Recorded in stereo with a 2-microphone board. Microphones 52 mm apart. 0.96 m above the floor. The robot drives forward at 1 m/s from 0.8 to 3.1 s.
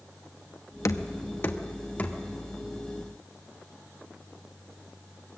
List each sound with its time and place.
0.8 s knocking: 80° left, 0.8 m; by 2.2 s 25° left (ahead or behind), 1.7 m